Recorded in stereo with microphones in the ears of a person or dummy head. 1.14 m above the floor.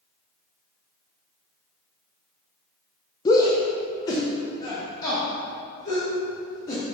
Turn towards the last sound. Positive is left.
turn(degrees=20)  # may be behind; listen again after turning